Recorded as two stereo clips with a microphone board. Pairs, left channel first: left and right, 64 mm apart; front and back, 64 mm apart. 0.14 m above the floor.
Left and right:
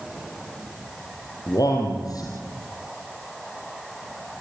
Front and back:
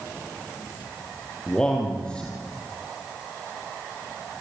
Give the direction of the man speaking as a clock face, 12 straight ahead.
9 o'clock.